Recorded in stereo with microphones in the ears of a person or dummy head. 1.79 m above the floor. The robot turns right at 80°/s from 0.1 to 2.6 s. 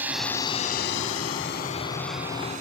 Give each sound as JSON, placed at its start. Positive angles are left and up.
{"t": 0.0, "sound": "a drone", "side_deg": -10}